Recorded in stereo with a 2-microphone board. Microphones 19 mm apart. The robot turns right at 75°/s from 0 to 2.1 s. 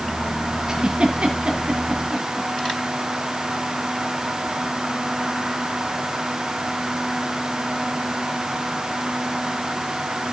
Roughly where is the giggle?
Right.